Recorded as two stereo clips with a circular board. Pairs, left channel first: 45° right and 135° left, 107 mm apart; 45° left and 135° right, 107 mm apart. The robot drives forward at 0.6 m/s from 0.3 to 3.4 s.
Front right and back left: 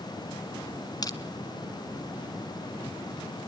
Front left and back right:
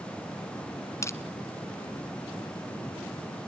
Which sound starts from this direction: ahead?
Crushing, at 1.0 s.